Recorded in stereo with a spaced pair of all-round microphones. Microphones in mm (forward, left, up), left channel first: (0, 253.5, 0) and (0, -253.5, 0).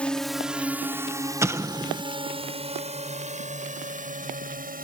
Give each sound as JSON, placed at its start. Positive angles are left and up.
{"t": 0.0, "sound": "a drone", "side_deg": 0}
{"t": 1.4, "sound": "an explosion", "side_deg": -5}